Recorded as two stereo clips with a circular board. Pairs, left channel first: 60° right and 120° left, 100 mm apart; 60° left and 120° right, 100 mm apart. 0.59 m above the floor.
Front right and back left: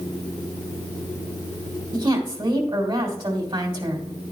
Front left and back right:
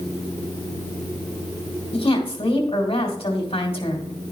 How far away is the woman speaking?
About 2.5 m.